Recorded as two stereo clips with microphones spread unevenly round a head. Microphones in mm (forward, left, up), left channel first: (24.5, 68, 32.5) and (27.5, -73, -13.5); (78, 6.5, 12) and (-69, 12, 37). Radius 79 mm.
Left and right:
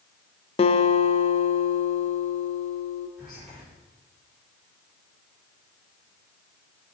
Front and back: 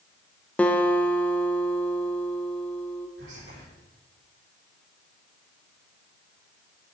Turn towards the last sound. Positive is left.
turn(degrees=180)